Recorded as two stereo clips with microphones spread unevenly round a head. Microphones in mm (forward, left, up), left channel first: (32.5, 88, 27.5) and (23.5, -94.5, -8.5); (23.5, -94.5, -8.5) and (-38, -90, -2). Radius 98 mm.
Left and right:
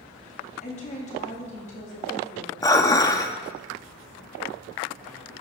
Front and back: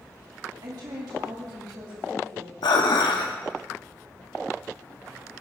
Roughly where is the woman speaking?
Behind left.